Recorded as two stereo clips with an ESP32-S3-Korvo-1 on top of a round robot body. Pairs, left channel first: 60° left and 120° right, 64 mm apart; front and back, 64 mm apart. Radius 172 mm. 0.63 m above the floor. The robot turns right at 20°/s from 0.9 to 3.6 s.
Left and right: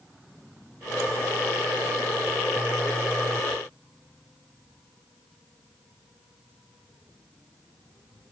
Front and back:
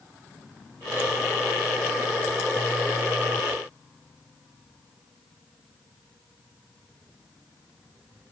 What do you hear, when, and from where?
Only background noise.